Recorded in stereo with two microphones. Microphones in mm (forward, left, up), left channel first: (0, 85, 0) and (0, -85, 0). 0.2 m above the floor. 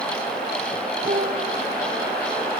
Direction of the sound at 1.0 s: 50° right (ahead or behind).